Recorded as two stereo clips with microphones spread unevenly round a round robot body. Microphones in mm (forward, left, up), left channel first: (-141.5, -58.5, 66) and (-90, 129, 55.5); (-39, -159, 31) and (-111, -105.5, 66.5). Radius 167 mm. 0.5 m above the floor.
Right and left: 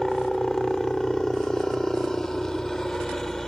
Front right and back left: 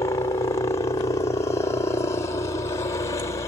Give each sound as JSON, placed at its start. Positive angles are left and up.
{"t": 0.0, "sound": "a helicopter", "azimuth_deg": -15}